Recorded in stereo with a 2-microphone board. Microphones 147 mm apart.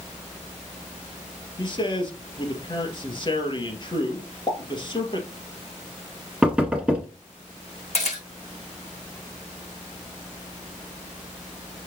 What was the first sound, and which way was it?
A man speaking, 35° left (ahead or behind).